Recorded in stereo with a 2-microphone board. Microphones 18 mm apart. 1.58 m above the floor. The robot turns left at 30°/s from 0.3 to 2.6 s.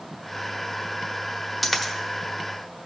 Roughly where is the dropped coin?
Centre.